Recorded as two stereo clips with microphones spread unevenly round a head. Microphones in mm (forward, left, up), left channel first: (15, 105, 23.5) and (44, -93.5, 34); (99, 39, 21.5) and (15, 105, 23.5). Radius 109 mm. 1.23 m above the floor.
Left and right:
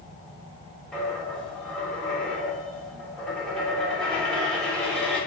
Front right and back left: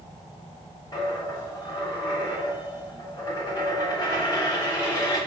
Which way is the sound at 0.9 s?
10° left.